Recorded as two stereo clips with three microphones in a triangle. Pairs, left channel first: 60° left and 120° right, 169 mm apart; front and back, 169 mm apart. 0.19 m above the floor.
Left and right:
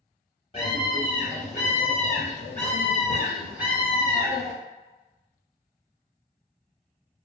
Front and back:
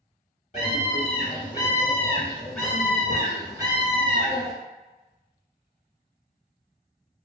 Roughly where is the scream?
Ahead.